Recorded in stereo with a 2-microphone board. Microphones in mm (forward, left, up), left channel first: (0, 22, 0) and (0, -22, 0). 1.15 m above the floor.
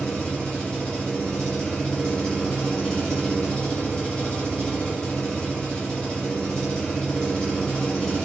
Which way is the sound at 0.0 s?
20° left (ahead or behind).